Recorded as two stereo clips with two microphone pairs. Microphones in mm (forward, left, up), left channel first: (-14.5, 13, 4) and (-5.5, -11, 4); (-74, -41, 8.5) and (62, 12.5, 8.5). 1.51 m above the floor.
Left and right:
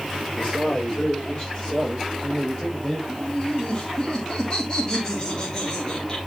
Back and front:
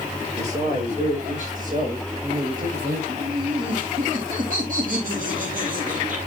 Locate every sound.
0.4 s a man speaking: 60° left, 6.5 m; by 3.0 s 40° left, 7 m
3.1 s laughter: 45° left, 3.5 m